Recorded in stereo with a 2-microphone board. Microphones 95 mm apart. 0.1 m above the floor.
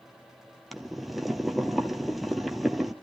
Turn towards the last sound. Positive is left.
turn(degrees=0)  # may be behind; listen again after turning